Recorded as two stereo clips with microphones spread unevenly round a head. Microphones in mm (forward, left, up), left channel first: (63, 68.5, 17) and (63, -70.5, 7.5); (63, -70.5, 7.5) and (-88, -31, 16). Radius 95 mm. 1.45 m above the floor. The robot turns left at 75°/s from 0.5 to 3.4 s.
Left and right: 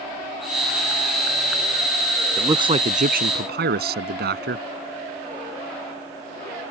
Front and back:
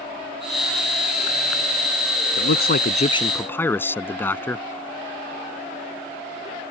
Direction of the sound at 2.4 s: 15° right.